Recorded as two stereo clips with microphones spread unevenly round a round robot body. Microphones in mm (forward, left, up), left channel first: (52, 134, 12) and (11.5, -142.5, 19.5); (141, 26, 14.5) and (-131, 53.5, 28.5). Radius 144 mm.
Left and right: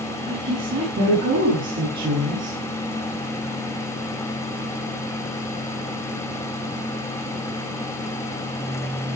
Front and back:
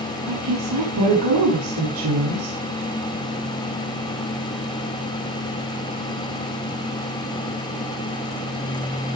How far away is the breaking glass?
No breaking glass in this recording.